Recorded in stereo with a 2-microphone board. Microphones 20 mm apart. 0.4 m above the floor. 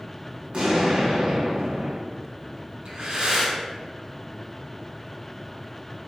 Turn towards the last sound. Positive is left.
turn(degrees=-45)  # may be behind; listen again after turning